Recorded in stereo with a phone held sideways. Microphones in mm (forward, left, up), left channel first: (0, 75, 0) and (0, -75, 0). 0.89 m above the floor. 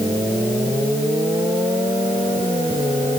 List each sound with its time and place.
Only background noise.